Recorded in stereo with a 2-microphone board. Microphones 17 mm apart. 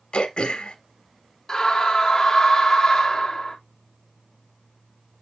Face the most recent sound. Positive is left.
turn(degrees=30)  # may be behind; listen again after turning